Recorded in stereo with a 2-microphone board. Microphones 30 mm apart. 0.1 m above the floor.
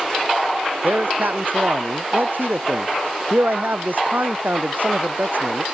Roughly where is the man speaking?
Right.